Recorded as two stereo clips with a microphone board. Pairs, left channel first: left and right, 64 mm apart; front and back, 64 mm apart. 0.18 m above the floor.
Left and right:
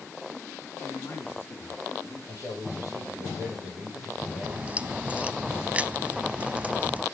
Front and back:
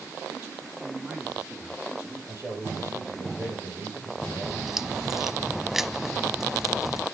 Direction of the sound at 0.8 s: 115° left.